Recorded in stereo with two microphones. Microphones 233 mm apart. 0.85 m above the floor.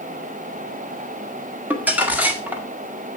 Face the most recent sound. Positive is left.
turn(degrees=-5)  # may be behind; listen again after turning